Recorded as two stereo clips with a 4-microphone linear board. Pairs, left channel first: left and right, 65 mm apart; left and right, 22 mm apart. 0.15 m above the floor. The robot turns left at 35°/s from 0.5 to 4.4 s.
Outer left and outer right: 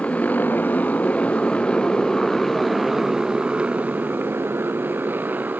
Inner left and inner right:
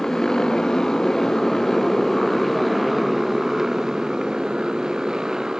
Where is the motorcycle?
20° left (ahead or behind); by 5.6 s 30° right (ahead or behind).